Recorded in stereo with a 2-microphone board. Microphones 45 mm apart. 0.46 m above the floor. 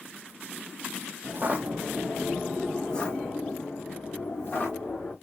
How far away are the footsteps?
About 0.8 m.